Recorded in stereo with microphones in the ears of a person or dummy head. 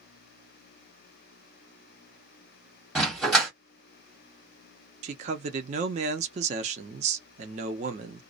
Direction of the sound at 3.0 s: 5° left (ahead or behind).